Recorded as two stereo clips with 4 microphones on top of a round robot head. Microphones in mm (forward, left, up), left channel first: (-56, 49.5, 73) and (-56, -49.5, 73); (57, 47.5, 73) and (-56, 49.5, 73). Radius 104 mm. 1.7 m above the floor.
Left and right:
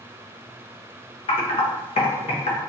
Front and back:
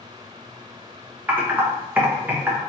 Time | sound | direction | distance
1.3 | typing on a keyboard | 105° left | 0.6 m